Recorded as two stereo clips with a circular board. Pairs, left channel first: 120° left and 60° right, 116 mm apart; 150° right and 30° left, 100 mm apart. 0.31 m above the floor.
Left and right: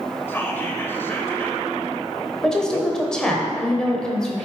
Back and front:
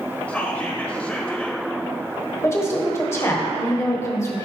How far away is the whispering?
About 0.9 m.